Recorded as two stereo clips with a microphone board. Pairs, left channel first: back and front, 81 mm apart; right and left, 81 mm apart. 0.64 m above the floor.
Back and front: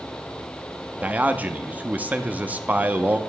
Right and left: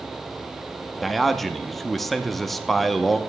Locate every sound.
1.0 s a man speaking: 5° right, 0.6 m